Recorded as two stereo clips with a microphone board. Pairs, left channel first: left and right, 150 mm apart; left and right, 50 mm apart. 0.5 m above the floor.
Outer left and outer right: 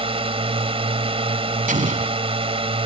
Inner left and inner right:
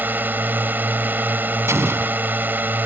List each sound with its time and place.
0.0 s a drone: 40° right (ahead or behind)
1.7 s an explosion: 65° right (ahead or behind)